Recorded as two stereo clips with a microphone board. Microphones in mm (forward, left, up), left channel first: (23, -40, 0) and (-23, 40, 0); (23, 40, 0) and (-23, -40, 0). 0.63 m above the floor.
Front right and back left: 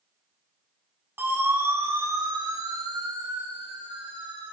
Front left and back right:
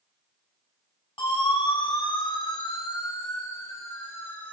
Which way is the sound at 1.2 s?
55° left.